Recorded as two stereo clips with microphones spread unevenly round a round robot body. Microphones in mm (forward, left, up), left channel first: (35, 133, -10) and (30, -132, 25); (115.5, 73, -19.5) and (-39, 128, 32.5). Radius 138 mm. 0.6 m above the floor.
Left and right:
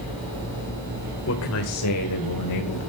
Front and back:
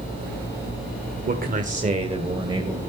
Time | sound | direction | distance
1.3 | a man speaking | 125° left | 1.8 m